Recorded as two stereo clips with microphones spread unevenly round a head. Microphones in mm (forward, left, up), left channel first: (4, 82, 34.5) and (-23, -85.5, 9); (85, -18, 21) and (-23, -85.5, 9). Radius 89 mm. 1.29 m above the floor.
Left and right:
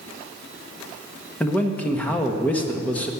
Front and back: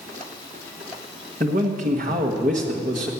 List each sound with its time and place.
1.4 s a man speaking: 160° left, 1.4 m